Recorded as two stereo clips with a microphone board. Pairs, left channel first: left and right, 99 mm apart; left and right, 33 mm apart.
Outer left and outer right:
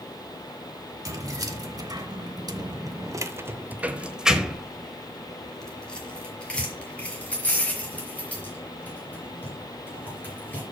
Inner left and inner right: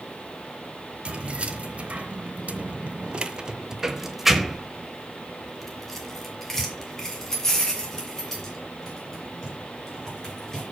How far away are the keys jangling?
About 1.2 m.